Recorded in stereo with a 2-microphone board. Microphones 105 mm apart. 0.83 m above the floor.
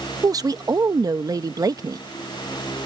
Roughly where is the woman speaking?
Right.